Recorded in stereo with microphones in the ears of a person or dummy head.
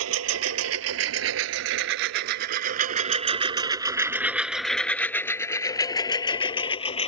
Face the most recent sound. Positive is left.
turn(degrees=30)  # may be behind; listen again after turning